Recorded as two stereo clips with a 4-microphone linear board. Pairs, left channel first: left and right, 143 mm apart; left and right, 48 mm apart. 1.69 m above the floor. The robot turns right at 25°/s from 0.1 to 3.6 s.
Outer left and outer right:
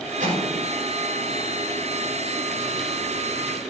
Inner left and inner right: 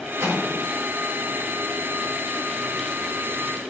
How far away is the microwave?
About 4.5 m.